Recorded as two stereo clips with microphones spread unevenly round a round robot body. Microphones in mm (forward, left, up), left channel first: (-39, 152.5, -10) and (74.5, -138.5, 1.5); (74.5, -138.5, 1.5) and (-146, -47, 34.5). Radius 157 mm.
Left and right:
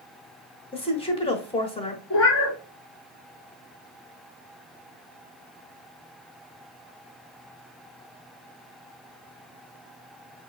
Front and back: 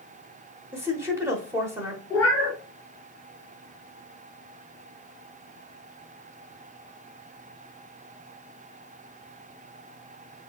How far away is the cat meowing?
About 1.4 m.